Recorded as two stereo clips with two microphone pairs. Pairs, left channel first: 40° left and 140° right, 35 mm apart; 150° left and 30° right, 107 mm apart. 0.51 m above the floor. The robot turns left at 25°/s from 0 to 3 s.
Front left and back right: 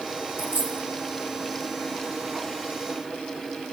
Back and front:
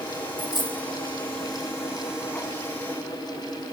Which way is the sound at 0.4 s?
155° right.